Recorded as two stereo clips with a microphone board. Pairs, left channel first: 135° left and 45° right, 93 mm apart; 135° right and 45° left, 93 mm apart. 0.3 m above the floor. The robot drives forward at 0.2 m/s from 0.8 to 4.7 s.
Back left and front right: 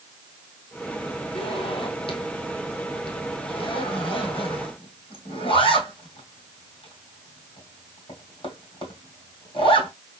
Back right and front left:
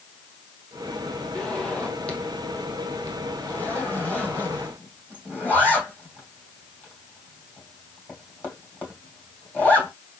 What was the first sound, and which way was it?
A zipper, 145° left.